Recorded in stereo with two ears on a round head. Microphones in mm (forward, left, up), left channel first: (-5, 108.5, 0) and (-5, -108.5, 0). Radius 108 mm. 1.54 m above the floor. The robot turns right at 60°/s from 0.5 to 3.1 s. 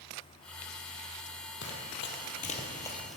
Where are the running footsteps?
50° left (ahead or behind), 2.5 m; by 3.2 s centre (ahead or behind), 1.9 m.